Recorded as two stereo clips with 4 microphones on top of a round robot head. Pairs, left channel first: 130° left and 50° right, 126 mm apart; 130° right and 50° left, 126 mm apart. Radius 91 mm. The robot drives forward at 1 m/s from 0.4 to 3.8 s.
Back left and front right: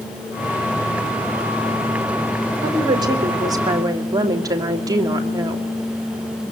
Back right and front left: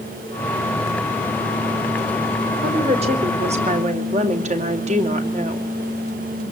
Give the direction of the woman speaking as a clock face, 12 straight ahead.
12 o'clock.